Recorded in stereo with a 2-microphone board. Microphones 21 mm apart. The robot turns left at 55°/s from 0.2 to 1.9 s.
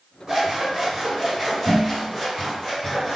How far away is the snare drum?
No snare drum in this recording.